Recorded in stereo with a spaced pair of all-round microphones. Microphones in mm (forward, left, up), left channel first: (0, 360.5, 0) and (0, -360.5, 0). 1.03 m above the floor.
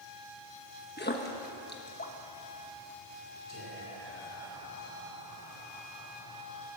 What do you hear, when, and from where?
1.0 s a splash: 15° left (ahead or behind), 1.2 m
3.5 s whispering: 20° left (ahead or behind), 4 m